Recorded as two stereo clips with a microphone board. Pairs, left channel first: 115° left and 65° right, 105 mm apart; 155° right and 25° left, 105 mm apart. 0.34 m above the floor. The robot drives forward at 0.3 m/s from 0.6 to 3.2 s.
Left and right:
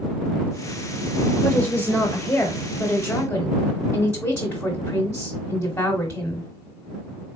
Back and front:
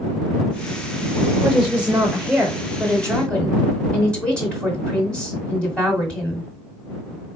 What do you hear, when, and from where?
1.4 s a woman speaking: 50° left, 1.0 m; by 6.5 s 140° left, 1.0 m